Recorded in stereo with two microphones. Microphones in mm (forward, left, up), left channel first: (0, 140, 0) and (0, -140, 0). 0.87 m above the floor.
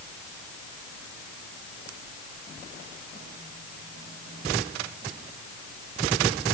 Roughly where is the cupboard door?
No cupboard door in this recording.